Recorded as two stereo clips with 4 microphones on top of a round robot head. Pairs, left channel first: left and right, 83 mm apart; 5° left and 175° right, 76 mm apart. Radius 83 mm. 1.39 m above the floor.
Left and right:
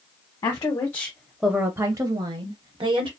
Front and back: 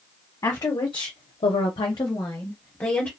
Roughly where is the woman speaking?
Ahead left.